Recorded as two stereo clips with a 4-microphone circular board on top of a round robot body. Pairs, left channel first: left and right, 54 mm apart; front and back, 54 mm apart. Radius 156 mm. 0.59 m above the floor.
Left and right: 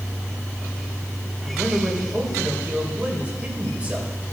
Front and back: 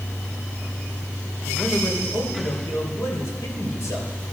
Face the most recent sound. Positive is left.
turn(degrees=-20)